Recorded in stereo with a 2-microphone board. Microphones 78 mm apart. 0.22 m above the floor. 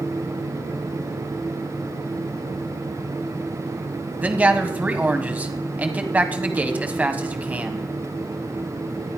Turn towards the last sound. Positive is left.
turn(degrees=-20)  # may be behind; listen again after turning